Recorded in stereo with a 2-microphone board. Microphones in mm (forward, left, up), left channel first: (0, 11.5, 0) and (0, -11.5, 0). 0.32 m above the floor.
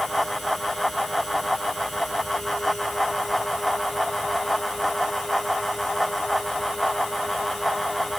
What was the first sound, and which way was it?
Only background noise.